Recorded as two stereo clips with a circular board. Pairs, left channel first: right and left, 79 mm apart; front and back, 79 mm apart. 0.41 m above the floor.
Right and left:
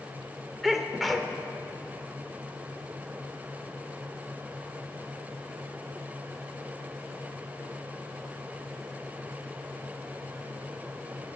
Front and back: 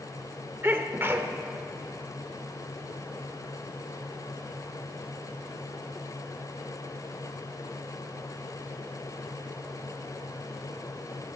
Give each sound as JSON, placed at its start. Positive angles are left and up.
{"t": 0.6, "sound": "a sneeze", "azimuth_deg": 180, "distance_m": 1.2}